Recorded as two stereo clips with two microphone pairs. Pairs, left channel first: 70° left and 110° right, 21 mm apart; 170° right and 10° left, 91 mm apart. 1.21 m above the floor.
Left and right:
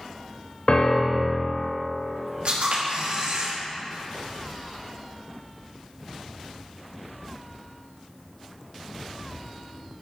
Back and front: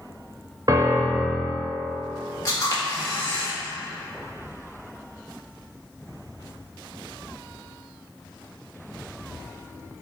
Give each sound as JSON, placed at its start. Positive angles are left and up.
{"t": 0.7, "sound": "a piano", "azimuth_deg": 45, "distance_m": 0.8}
{"t": 2.5, "sound": "a camera shutter", "azimuth_deg": -120, "distance_m": 2.0}